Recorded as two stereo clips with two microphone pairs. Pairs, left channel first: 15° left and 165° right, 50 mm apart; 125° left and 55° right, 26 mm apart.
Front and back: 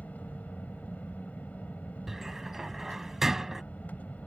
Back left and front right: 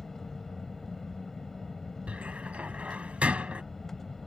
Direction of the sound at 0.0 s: 55° left.